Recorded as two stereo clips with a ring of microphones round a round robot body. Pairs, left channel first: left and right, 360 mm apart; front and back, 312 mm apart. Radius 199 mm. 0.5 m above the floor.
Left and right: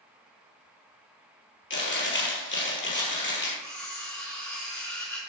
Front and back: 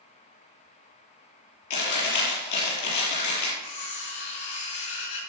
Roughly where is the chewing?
Ahead left.